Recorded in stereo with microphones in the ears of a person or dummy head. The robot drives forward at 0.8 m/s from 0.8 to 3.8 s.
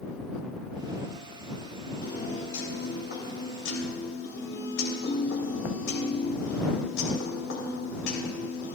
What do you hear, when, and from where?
2.0 s a piano: 55° left (ahead or behind), 4 m; by 8.8 s 75° left (ahead or behind), 3 m